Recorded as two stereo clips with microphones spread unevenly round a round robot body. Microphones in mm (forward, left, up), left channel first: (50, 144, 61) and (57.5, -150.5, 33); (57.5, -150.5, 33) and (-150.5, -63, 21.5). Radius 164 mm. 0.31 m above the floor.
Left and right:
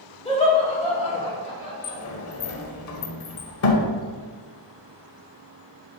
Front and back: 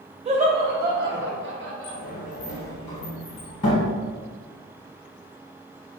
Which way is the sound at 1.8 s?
45° left.